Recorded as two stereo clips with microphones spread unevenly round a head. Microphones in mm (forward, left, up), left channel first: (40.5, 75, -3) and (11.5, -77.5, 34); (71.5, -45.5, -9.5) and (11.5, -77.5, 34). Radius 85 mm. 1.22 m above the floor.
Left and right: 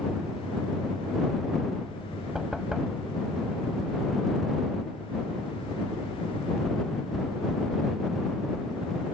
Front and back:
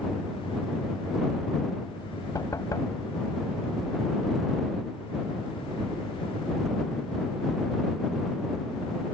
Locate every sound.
2.4 s knocking: 15° right